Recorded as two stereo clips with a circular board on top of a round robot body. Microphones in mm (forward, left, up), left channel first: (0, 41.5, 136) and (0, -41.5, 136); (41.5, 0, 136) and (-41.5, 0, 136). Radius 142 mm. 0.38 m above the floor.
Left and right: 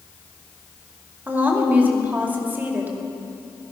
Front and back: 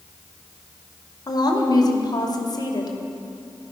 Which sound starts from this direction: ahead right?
A woman speaking, at 1.3 s.